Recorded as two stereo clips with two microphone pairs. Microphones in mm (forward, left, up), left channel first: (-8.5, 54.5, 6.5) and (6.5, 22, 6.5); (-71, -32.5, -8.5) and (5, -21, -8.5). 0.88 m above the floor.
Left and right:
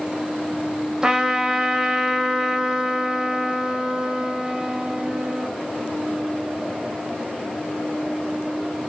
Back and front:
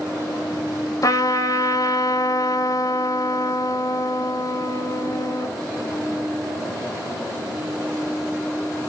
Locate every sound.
1.0 s a trumpet: 135° right, 1.6 m